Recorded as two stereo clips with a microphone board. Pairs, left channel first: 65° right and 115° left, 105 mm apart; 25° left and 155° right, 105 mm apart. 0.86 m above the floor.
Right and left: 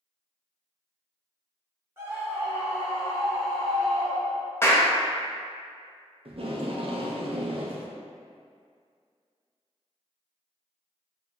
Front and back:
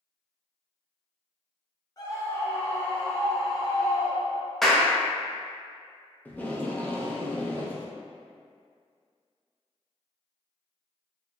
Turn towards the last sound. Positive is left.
turn(degrees=95)